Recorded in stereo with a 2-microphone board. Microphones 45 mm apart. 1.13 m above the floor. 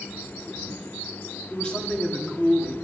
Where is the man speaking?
20° left (ahead or behind), 2.5 m.